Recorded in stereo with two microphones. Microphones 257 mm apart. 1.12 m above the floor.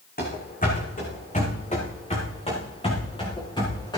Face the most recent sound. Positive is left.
turn(degrees=15)  # may be behind; listen again after turning